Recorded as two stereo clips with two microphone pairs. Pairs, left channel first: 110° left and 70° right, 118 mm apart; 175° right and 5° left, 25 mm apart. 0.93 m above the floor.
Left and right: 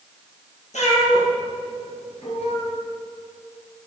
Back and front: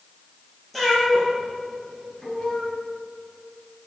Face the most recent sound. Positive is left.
turn(degrees=135)